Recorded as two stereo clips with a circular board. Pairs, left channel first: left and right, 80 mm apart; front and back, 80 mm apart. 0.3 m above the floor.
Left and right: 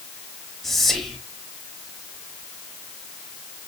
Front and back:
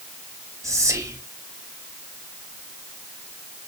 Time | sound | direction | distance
0.6 | whispering | 175° left | 1.0 m